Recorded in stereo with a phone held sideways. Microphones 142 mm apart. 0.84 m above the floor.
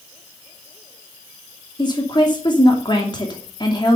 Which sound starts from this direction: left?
A woman speaking, at 1.8 s.